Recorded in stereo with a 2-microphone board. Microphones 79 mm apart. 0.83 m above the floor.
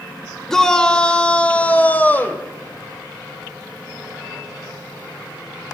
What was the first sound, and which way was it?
A shout, 5° left (ahead or behind).